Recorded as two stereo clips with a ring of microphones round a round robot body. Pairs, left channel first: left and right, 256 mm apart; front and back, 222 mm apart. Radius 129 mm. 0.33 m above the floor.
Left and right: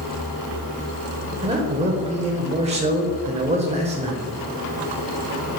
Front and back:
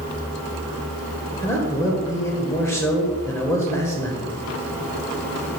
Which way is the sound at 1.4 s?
65° right.